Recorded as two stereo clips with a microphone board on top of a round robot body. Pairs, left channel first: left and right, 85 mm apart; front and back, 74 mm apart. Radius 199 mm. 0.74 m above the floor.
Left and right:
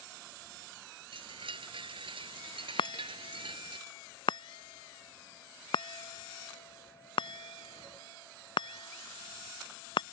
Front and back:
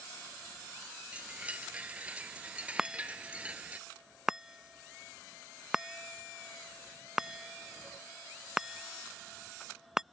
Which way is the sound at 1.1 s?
105° right.